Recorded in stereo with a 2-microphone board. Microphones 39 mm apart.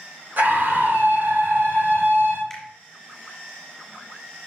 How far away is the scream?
About 2.5 m.